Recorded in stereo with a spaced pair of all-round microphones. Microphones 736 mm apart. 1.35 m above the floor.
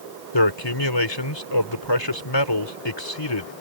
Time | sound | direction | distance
0.3 | a man speaking | 35° left (ahead or behind) | ?